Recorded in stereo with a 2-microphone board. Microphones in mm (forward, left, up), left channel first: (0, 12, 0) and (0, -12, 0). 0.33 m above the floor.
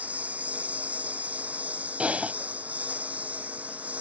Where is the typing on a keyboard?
65° right (ahead or behind).